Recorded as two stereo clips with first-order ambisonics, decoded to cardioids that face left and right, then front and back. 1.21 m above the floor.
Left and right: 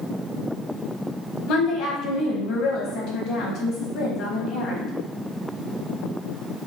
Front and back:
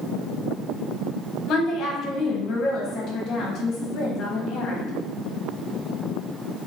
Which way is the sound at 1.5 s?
50° left.